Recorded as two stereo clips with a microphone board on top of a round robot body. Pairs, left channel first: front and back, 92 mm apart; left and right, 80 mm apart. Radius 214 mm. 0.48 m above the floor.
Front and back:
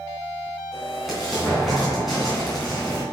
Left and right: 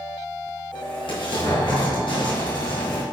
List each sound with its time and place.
0.7 s an explosion: 95° left, 3 m